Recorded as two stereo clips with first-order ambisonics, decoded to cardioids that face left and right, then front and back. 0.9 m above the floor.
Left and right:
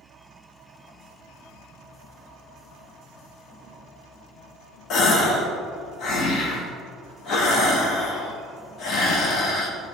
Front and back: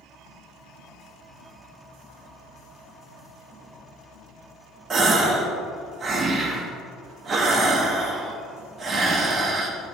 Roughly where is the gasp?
Behind left.